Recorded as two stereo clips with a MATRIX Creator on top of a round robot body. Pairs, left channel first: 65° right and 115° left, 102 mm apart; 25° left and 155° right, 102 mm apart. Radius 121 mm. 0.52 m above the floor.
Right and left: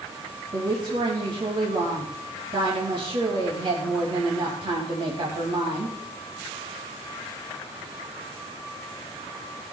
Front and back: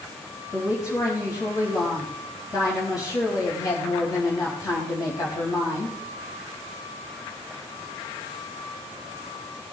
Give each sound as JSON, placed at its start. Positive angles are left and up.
{"t": 0.5, "sound": "a woman speaking", "azimuth_deg": 75, "distance_m": 4.0}